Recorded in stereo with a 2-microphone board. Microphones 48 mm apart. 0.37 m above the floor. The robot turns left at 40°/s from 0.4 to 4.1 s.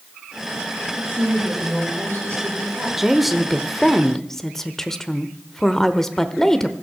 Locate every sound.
0.9 s a woman speaking: 40° right, 9.5 m; by 2.9 s 120° right, 9.5 m
3.0 s a woman speaking: 5° right (ahead or behind), 0.9 m; by 6.7 s 10° left (ahead or behind), 0.9 m